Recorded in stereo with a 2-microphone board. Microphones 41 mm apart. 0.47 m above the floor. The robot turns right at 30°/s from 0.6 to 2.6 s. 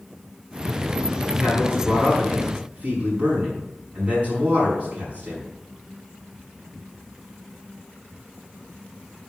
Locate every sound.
1.4 s a man speaking: centre (ahead or behind), 5 m; by 5.4 s 40° right (ahead or behind), 5 m